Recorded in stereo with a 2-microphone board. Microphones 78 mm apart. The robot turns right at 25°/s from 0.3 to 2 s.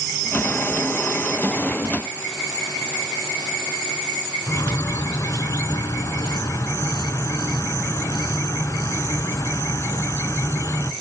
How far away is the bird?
About 0.7 m.